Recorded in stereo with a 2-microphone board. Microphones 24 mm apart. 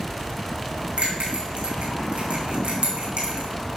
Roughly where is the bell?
Right.